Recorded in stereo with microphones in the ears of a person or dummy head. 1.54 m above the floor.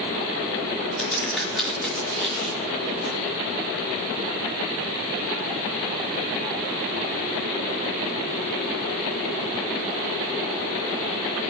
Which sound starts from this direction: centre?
A crack, at 1.0 s.